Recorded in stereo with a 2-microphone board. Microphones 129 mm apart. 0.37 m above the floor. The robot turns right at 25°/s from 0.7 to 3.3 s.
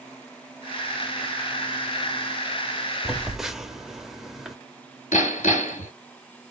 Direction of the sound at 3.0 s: Centre (ahead or behind).